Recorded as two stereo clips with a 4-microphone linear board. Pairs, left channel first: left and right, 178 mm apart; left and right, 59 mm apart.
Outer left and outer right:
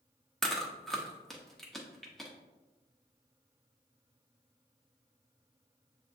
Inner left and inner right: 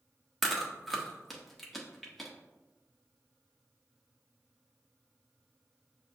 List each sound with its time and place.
0.4 s chewing: centre (ahead or behind), 0.8 m